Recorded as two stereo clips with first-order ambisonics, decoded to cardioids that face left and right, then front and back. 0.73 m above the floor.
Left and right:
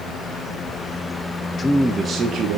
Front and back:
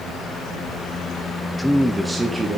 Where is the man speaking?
70° left, 0.5 m; by 2.6 s 105° right, 0.8 m.